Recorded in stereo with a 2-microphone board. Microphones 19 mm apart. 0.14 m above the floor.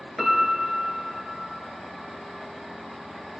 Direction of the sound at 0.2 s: Centre (ahead or behind).